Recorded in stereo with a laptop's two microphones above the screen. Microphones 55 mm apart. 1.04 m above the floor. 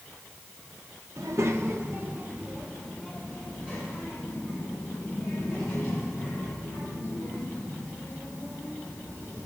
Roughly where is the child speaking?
Right.